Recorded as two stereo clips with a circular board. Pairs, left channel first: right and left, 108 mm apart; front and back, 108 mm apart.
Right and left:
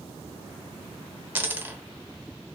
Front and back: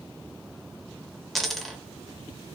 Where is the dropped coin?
85° left, 0.7 m.